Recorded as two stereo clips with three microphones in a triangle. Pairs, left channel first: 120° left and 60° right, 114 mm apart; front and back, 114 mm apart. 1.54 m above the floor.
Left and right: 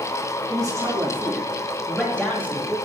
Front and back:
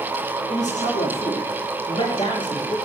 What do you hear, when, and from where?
0.5 s a man speaking: straight ahead, 3 m; by 2.8 s 55° left, 2.5 m